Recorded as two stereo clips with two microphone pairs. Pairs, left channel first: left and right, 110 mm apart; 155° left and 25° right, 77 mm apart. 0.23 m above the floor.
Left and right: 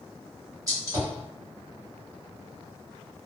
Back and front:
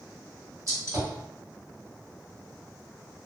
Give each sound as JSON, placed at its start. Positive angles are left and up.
{"t": 0.7, "sound": "a gunshot", "azimuth_deg": -45, "distance_m": 1.2}